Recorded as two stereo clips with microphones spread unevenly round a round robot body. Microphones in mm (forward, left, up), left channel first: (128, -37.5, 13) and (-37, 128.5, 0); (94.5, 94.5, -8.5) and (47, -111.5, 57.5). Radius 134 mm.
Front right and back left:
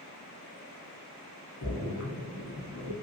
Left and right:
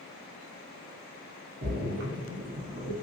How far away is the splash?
About 1.2 m.